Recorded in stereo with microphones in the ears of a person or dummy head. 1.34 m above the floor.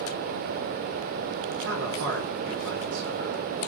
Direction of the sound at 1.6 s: 65° right (ahead or behind).